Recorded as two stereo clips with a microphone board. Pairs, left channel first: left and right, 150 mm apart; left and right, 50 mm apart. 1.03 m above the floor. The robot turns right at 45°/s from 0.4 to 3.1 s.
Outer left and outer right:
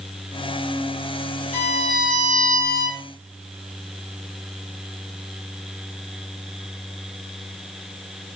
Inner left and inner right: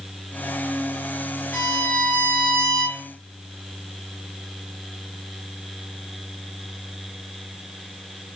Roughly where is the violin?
Behind left.